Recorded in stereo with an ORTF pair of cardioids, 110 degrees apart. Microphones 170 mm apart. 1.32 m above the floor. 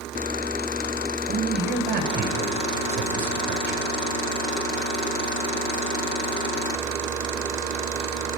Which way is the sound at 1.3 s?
65° right.